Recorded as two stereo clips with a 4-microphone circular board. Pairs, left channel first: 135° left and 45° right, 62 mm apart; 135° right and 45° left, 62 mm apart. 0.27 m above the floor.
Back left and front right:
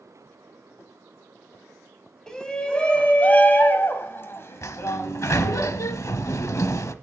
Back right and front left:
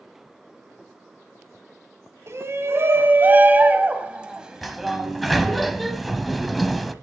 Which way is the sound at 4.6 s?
135° left.